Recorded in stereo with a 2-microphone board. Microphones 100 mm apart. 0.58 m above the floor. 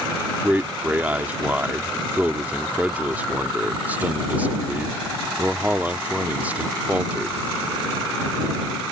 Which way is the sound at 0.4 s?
15° right (ahead or behind).